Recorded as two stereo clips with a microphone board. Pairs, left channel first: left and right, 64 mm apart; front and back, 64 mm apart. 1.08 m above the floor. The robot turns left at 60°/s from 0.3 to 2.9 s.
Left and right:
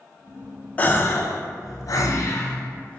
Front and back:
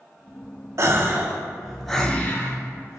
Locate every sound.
0.8 s a gasp: 150° left, 0.6 m; by 3.0 s 25° left, 0.6 m